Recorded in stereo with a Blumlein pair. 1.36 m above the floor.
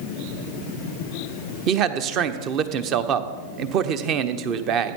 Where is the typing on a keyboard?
No typing on a keyboard in this recording.